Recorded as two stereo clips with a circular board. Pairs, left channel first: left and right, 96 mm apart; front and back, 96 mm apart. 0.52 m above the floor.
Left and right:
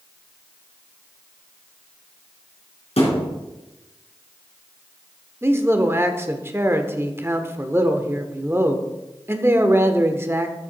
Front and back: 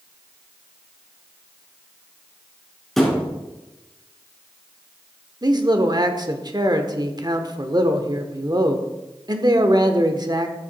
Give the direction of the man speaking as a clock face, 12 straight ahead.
5 o'clock.